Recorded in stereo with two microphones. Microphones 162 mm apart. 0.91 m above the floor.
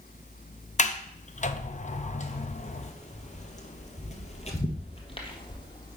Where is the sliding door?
50° left (ahead or behind), 0.5 m.